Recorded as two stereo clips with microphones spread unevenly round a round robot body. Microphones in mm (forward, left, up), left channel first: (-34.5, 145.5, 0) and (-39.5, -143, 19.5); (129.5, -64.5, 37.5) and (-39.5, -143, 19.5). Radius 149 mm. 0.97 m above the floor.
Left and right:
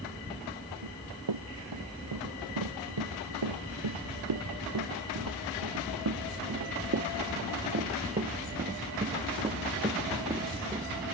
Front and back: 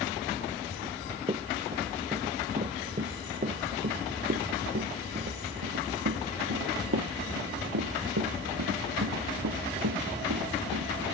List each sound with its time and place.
0.8 s running footsteps: 95° right; by 10.9 s 170° right